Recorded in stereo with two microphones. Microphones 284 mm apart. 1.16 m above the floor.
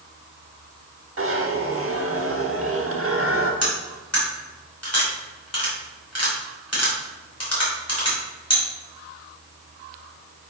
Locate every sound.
1.2 s a zipper: 50° right (ahead or behind), 1.1 m
3.6 s cutlery clinking: 60° left (ahead or behind), 2.5 m